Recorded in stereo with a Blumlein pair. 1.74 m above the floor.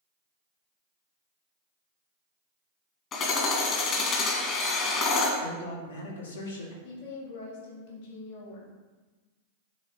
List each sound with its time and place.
3.1 s hammering: 30° left, 1.7 m
5.4 s a man speaking: 70° left, 2 m
6.8 s a woman speaking: 55° left, 2.5 m